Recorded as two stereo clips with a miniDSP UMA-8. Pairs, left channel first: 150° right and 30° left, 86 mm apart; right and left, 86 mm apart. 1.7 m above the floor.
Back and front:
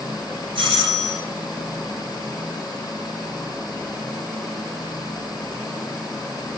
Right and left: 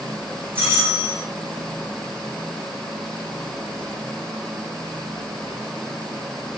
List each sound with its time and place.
0.6 s a doorbell: 25° left, 4.5 m